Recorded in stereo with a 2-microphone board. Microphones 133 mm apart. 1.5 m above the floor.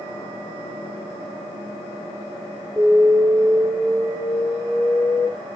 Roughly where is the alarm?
Centre.